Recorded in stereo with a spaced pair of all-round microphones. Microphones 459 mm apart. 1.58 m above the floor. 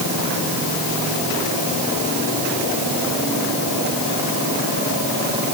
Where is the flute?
No flute in this recording.